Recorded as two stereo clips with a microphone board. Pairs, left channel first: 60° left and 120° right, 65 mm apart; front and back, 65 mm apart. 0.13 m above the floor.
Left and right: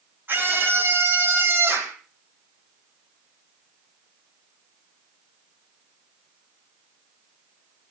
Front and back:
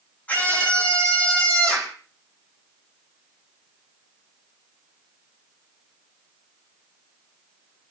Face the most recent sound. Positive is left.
turn(degrees=-70)